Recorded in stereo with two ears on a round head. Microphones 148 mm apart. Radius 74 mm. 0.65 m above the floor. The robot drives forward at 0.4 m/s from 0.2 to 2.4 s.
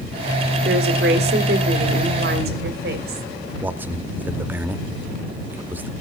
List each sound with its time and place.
0.7 s a woman speaking: 65° right (ahead or behind), 2.0 m
3.6 s a man speaking: 10° right (ahead or behind), 0.7 m